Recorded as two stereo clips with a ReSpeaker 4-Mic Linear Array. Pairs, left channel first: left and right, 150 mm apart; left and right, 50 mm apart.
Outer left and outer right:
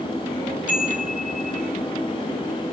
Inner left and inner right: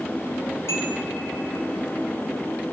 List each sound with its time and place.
0.7 s a chime: 65° left (ahead or behind), 3 m